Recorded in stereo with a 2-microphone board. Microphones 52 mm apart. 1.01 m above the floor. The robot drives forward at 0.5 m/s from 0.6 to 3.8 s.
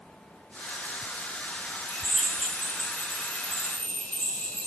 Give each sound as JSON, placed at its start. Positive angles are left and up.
{"t": 1.9, "sound": "a drill", "side_deg": 10, "distance_m": 9.0}